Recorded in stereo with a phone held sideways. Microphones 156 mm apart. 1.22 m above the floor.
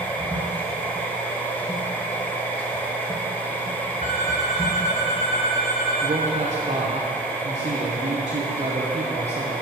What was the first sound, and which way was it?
A machine running, 10° left (ahead or behind).